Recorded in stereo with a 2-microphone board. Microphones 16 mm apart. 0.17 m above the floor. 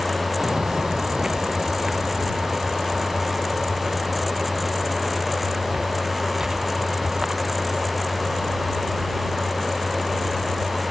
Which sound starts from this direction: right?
Footsteps, at 0.4 s.